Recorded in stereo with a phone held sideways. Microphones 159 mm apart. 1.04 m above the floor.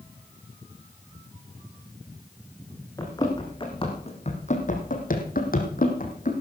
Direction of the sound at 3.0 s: 20° left (ahead or behind).